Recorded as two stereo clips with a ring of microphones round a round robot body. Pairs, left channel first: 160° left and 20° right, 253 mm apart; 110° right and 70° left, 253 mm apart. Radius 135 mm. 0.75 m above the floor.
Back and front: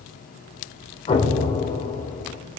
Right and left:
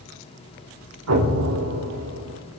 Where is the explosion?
90° left, 3.5 m.